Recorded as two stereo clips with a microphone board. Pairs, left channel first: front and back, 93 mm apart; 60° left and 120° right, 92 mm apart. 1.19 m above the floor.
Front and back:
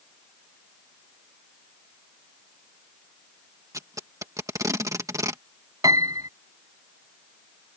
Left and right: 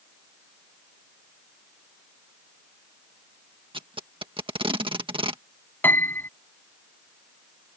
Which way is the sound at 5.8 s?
130° left.